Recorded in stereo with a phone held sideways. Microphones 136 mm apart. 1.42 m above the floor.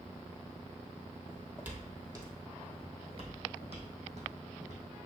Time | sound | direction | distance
1.3 | footsteps | 5° right (ahead or behind) | 1.8 m